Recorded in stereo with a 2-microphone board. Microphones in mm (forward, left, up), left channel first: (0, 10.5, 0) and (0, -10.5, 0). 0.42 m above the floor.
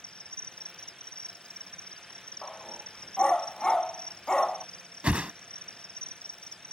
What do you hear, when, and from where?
0.0 s an insect: 60° left (ahead or behind)
2.4 s a dog barking: 30° left (ahead or behind)
5.0 s a whoosh: 75° right (ahead or behind)